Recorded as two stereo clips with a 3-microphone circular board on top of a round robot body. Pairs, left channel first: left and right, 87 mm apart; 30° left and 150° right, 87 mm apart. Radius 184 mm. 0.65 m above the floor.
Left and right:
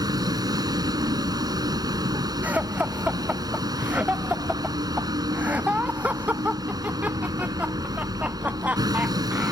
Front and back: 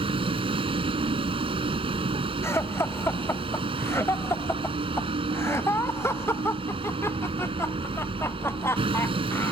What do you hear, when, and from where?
0.0 s a vehicle: 135° right
2.4 s laughter: 25° right